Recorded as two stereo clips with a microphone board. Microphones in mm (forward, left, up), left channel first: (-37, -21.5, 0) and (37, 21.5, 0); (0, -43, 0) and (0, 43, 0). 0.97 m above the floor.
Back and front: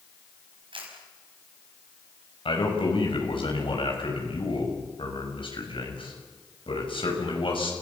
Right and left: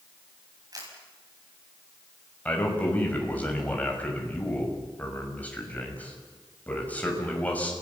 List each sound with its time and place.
0.7 s a camera shutter: 45° left, 5.5 m
2.5 s a man speaking: 165° right, 6 m